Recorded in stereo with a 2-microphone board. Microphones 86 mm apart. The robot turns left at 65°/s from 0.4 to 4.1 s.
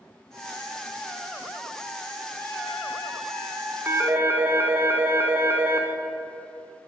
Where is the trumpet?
30° left, 1.5 m; by 4.8 s 80° right, 1.5 m.